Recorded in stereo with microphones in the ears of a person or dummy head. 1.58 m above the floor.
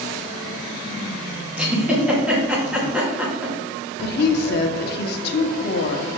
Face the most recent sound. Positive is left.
turn(degrees=60)  # may be behind; listen again after turning